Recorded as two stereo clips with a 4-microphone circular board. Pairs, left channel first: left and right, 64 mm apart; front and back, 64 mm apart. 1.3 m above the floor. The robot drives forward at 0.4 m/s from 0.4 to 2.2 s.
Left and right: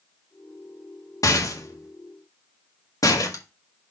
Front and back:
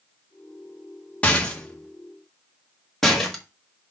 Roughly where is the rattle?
Left.